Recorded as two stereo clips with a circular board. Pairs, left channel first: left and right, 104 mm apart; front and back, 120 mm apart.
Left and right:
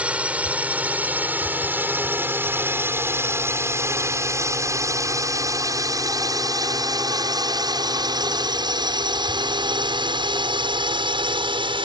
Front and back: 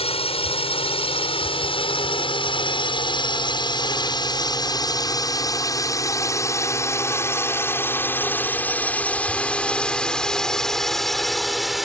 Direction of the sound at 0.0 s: 15° right.